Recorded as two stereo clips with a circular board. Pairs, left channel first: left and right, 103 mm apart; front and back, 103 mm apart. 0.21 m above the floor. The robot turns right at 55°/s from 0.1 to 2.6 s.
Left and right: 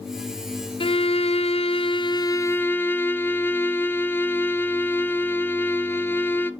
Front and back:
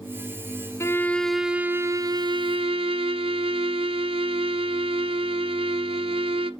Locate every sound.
0.8 s a violin: 60° left, 0.7 m; by 6.5 s 160° left, 0.7 m